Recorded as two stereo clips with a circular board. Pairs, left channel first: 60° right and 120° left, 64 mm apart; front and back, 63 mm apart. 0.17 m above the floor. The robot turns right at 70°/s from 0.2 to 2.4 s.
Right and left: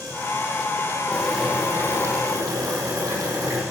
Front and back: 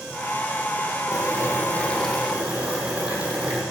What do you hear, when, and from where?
1.1 s boiling: 15° left, 8.5 m; by 3.6 s 105° left, 8.5 m